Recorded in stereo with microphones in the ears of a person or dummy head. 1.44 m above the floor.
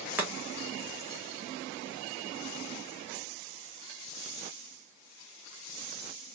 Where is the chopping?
10° right (ahead or behind), 1.1 m.